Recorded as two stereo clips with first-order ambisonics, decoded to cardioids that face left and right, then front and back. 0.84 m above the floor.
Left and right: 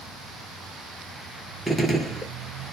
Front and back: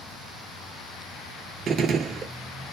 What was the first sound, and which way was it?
A gunshot, 170° left.